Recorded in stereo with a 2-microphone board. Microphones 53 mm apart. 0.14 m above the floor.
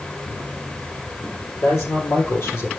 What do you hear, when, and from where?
1.6 s a man speaking: 70° left (ahead or behind), 4.5 m; by 2.7 s 55° left (ahead or behind), 4 m